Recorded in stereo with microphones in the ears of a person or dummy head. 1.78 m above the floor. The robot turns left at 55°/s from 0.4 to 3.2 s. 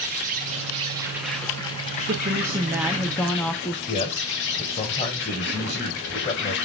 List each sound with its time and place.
0.0 s an insect: 130° right, 1.8 m; by 6.7 s 75° left, 1.8 m
2.1 s a woman speaking: 20° right (ahead or behind), 0.6 m; by 3.8 s 5° left (ahead or behind), 0.6 m
3.9 s a man speaking: 30° left (ahead or behind), 1.5 m